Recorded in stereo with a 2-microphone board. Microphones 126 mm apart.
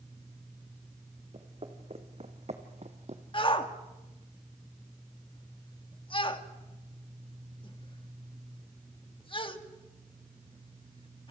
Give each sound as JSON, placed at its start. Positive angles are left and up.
{"t": 1.3, "sound": "footsteps", "side_deg": -45, "distance_m": 3.0}
{"t": 3.3, "sound": "a shout", "side_deg": 40, "distance_m": 1.7}